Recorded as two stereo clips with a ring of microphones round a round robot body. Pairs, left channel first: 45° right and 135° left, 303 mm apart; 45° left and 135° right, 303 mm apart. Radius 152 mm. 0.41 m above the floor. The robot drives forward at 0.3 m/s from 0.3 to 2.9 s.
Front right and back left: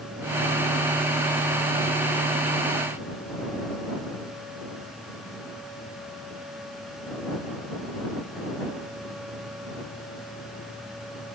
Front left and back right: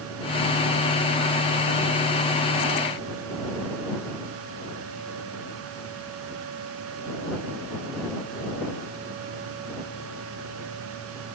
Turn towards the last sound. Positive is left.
No sound to turn to.